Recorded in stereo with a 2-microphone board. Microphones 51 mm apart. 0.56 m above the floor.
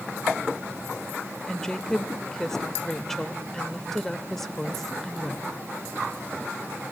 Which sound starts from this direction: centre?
A woman speaking, at 1.5 s.